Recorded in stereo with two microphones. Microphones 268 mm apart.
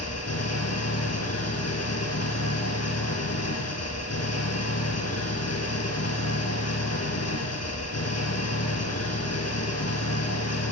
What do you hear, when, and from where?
0.0 s an engine running: 80° left, 4.5 m